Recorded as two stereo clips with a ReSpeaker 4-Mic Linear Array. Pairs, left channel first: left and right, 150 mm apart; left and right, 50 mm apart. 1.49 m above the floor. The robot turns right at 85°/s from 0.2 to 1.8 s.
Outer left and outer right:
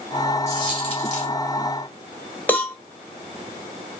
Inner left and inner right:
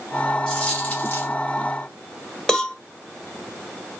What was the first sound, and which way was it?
A dropped coin, 25° left.